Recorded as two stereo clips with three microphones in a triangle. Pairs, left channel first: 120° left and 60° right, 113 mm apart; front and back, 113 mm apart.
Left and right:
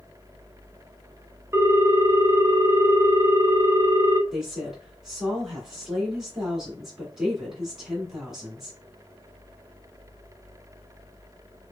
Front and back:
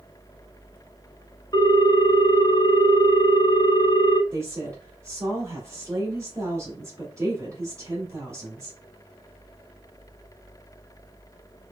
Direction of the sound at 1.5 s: 10° right.